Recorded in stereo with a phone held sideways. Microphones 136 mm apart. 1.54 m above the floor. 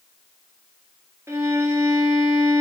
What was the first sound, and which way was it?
A violin, 20° right (ahead or behind).